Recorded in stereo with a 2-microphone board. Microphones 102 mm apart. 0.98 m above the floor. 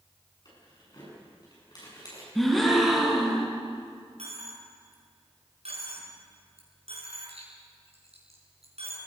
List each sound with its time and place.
0.5 s keys jangling: 40° left (ahead or behind), 8.5 m
2.4 s a gasp: centre (ahead or behind), 3.5 m
4.2 s a dropped coin: 75° right (ahead or behind), 5 m